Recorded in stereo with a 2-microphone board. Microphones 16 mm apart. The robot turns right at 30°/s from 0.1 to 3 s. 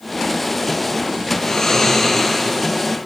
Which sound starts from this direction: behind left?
Snoring, at 1.4 s.